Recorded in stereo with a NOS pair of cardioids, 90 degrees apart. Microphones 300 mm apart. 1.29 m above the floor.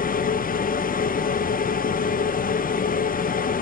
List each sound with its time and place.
0.0 s a machine running: 30° left, 0.7 m